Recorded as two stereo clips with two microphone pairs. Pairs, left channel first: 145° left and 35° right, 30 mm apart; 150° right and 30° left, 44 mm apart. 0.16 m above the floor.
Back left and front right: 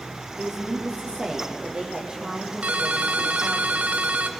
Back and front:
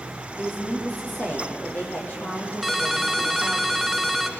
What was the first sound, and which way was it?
A woman speaking, 100° right.